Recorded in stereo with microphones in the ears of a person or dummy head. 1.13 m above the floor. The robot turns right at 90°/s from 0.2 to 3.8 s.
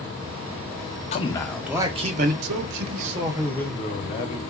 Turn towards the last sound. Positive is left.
turn(degrees=30)